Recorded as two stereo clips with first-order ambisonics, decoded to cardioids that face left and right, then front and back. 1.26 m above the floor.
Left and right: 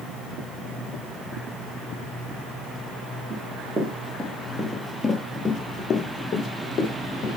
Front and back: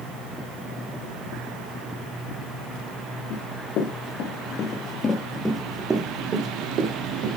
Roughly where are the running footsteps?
Ahead.